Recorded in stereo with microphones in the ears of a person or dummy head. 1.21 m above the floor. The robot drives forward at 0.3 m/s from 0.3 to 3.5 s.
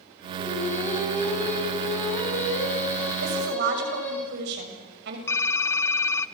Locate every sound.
0.4 s singing: 10° left (ahead or behind), 8 m; by 4.2 s 15° left (ahead or behind), 7 m
3.2 s a woman speaking: 65° right (ahead or behind), 6.5 m
5.3 s typing on a keyboard: 15° left (ahead or behind), 0.7 m